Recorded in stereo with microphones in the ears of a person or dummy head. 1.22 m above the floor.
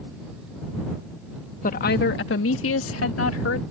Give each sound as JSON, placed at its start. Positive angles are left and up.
{"t": 1.6, "sound": "a woman speaking", "side_deg": 40}